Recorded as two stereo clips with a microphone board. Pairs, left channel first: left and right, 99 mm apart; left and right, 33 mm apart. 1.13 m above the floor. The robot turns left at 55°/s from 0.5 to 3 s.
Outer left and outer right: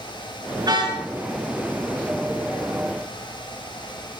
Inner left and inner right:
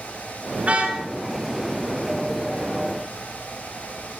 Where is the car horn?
40° right (ahead or behind), 5.5 m; by 1.0 s 60° right (ahead or behind), 5.5 m.